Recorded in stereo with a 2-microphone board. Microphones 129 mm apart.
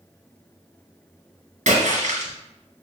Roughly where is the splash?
Right.